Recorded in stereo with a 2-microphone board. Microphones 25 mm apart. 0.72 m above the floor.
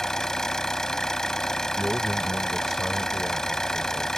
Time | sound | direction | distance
0.0 | an engine running | 20° left (ahead or behind) | ?
1.8 | a man speaking | 15° right (ahead or behind) | ?